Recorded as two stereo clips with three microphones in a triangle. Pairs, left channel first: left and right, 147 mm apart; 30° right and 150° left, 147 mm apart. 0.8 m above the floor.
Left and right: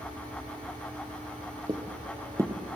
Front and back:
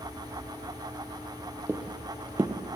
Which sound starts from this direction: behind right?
Footsteps, at 1.7 s.